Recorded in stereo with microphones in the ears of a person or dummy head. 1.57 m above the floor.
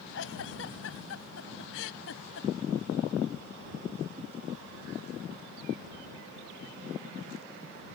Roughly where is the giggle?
Left.